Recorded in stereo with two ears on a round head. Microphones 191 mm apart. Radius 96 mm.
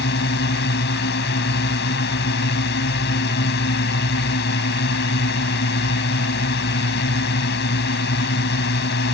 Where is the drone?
55° left (ahead or behind).